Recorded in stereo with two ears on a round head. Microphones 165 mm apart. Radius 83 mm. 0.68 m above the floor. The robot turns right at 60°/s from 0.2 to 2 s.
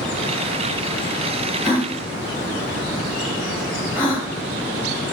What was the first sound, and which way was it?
A gasp, 30° left (ahead or behind).